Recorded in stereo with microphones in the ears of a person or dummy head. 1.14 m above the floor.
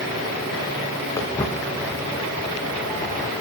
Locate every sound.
1.2 s footsteps: 15° left (ahead or behind), 5 m